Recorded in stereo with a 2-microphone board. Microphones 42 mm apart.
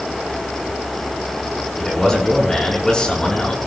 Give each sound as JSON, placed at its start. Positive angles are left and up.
{"t": 1.8, "sound": "a man speaking", "side_deg": 10, "distance_m": 6.0}